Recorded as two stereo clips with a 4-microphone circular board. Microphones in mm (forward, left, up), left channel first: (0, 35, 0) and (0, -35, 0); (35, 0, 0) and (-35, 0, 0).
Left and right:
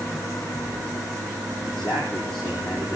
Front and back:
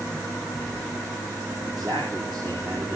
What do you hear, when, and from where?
1.6 s a man speaking: 175° left, 4.5 m